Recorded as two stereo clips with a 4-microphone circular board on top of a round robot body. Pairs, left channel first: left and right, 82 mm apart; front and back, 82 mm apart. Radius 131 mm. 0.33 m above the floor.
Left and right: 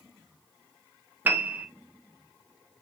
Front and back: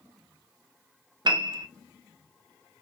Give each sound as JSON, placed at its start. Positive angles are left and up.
{"t": 1.2, "sound": "a piano", "azimuth_deg": -155, "distance_m": 0.6}